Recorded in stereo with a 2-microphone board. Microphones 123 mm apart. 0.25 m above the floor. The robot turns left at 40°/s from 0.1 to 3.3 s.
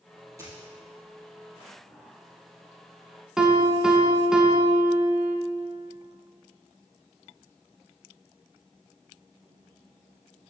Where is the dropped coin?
25° right (ahead or behind), 2.5 m; by 0.7 s 35° right (ahead or behind), 2.5 m.